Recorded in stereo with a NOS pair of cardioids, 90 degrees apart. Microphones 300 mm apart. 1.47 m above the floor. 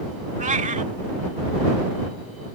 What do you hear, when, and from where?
0.4 s a cat meowing: 25° right